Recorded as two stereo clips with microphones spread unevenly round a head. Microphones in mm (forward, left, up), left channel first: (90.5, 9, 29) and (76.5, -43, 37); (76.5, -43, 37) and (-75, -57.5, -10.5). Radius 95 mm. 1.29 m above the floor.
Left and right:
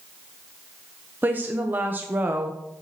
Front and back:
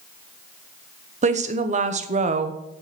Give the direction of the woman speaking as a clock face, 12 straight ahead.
6 o'clock.